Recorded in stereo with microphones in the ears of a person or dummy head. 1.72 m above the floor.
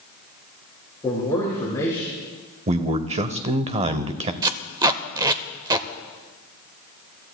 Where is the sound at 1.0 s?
15° left (ahead or behind), 4.5 m; by 2.1 s 20° left (ahead or behind), 4 m.